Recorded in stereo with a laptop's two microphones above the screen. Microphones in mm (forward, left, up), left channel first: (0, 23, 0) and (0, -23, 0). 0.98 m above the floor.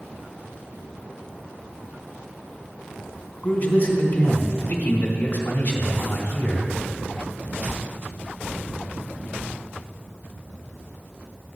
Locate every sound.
3.4 s a man speaking: 45° left (ahead or behind), 3 m